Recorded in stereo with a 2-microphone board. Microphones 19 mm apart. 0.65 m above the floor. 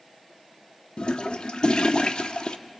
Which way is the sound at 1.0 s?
50° left (ahead or behind).